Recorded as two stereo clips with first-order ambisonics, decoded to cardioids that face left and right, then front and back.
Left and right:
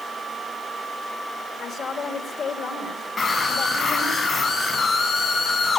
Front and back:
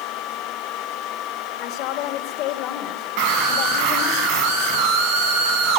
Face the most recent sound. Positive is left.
turn(degrees=160)